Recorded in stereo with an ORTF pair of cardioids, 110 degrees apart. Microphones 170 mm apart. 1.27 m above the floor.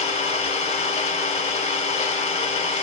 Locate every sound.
0.0 s an engine running: 40° left, 1.0 m